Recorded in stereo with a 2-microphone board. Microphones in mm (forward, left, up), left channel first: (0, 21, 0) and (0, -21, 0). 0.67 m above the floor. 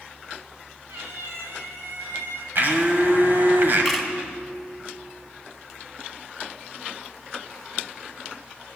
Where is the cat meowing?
80° right, 3 m.